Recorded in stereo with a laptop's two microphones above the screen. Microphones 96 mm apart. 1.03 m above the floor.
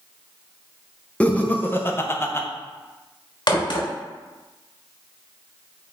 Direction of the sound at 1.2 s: 10° left (ahead or behind).